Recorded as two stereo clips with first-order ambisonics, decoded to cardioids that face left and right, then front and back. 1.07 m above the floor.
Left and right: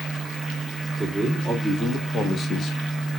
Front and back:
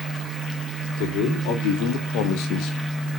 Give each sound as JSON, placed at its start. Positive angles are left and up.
{"t": 1.0, "sound": "a man speaking", "azimuth_deg": 5, "distance_m": 2.5}